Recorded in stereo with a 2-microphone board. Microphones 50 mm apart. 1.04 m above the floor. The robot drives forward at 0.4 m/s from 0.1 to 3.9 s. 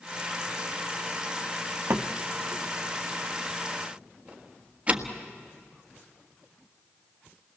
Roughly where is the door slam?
Right.